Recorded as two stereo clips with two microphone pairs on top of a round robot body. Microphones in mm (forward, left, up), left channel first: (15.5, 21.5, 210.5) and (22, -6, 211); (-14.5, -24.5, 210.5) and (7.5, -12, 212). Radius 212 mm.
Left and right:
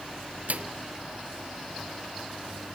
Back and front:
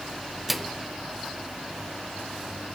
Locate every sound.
0.5 s a microwave: 60° right, 1.0 m